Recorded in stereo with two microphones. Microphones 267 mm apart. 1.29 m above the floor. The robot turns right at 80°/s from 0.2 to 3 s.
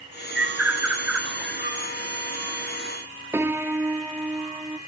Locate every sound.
0.3 s a bird: 45° right (ahead or behind), 3.5 m; by 1.8 s 20° right (ahead or behind), 3.5 m
3.3 s a piano: 10° right (ahead or behind), 0.7 m